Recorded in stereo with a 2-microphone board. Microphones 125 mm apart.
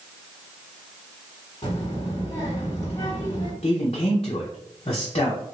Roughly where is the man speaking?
Left.